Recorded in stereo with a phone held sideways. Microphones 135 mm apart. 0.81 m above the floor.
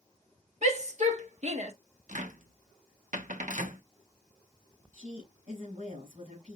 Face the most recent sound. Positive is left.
turn(degrees=-75)  # may be behind; listen again after turning